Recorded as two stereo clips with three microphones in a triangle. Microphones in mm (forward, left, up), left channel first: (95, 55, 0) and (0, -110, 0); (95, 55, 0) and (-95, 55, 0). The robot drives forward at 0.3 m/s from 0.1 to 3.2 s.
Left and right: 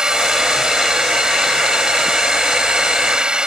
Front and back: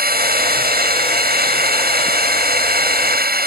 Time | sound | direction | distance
0.0 | a drone | 155° left | ?